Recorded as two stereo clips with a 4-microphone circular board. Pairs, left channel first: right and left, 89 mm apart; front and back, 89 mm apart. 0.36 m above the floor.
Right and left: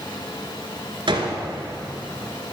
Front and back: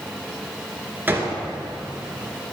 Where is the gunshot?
115° left, 1.9 m.